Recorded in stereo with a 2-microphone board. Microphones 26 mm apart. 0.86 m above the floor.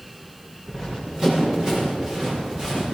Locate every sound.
0.7 s running footsteps: 30° right (ahead or behind), 6.5 m; by 2.8 s 35° right (ahead or behind), 9 m